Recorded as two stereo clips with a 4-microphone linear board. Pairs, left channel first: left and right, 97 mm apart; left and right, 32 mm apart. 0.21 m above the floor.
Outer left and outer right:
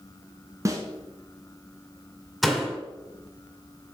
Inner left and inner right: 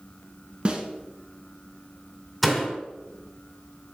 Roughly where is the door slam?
Centre.